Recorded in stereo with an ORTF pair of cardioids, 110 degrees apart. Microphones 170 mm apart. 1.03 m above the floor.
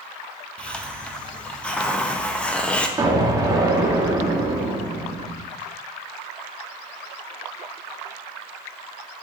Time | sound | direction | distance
0.6 | a hiss | 5° left | 0.9 m
3.0 | an explosion | 20° right | 1.4 m